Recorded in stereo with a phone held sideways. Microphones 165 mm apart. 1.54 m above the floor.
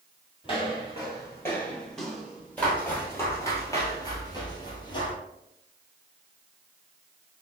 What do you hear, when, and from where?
0.4 s footsteps: 30° left (ahead or behind), 2.0 m; by 2.9 s 15° right (ahead or behind), 1.6 m
2.6 s footsteps: 10° left (ahead or behind), 1.8 m; by 5.2 s 30° left (ahead or behind), 1.7 m